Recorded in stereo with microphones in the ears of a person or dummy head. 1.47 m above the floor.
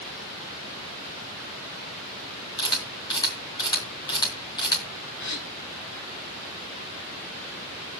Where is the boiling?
I don't hear boiling.